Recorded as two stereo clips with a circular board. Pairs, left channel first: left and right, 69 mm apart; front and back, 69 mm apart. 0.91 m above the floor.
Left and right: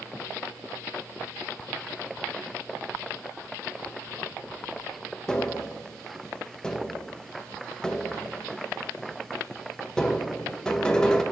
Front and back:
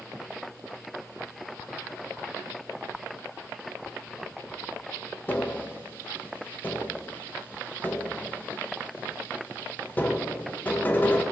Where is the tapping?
25° left, 0.5 m.